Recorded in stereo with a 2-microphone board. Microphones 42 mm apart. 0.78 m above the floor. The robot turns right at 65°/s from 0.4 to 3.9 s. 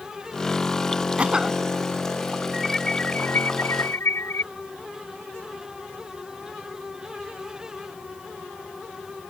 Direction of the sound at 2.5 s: 5° right.